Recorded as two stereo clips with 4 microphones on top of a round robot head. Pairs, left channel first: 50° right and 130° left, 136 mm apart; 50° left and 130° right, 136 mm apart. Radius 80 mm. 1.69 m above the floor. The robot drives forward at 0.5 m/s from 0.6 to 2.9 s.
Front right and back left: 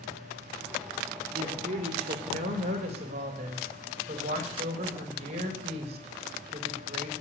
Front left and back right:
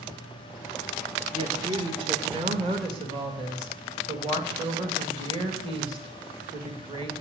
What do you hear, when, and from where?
1.3 s a woman speaking: 175° left, 2 m